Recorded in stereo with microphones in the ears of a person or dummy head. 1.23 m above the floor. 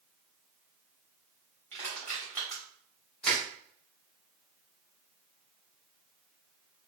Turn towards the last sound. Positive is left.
turn(degrees=0)  # may be behind; listen again after turning